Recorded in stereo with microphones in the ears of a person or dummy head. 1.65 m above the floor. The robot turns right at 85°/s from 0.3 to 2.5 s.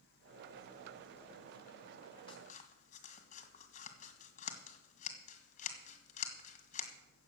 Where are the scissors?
30° left (ahead or behind), 1.8 m; by 6.9 s 50° left (ahead or behind), 1.8 m.